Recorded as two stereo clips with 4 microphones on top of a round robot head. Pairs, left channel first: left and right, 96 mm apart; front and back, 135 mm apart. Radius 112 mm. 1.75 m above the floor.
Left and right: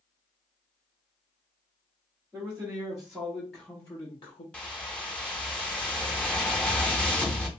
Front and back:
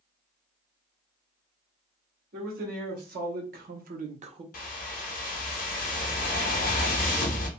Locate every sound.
2.3 s a man speaking: 165° right, 1.4 m; by 4.4 s 130° left, 0.6 m
4.5 s a whoosh: 10° left, 0.5 m